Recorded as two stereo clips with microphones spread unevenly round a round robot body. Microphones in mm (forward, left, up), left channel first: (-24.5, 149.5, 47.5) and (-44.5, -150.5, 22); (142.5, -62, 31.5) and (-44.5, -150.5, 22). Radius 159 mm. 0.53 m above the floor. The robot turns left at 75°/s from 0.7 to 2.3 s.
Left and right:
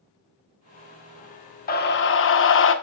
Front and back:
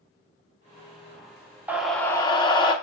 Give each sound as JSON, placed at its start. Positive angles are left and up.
{"t": 1.7, "sound": "a scream", "azimuth_deg": 135, "distance_m": 1.3}